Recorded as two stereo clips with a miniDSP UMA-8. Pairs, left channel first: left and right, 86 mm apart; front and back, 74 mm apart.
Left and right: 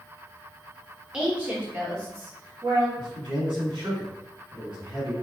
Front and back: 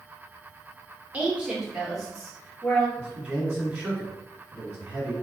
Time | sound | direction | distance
1.1 | a woman speaking | 155° right | 0.9 m
3.0 | a man speaking | 95° right | 1.5 m